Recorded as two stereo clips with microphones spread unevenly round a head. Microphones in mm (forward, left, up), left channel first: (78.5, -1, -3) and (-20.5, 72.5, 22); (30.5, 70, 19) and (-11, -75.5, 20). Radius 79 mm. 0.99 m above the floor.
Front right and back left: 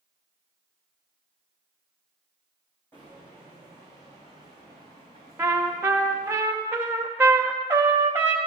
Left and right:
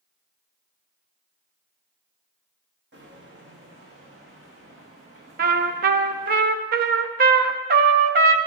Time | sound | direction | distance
2.9 | footsteps | 120° right | 2.5 m
5.4 | a trumpet | 140° right | 0.6 m